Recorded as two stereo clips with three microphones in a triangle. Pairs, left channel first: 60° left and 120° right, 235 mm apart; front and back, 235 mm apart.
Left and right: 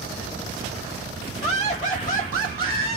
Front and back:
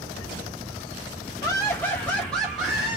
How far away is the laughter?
About 1.4 m.